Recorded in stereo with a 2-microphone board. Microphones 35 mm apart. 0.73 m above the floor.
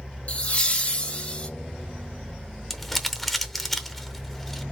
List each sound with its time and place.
0.3 s laughter: 40° left (ahead or behind), 0.8 m
2.7 s crumpling: centre (ahead or behind), 0.7 m